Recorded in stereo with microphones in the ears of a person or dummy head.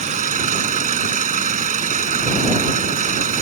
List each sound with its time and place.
0.0 s an engine running: 35° right (ahead or behind)